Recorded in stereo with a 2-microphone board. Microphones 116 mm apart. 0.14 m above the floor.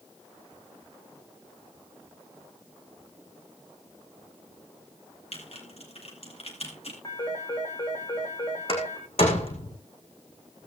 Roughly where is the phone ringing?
Left.